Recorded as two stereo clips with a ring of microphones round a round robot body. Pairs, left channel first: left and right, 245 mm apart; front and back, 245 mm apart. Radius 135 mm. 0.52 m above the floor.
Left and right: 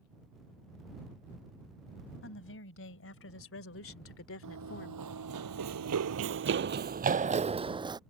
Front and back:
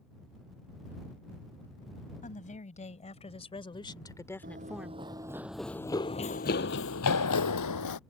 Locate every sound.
2.2 s a woman speaking: 60° left; by 5.4 s 130° left
4.4 s running footsteps: 120° right; by 8.0 s 15° right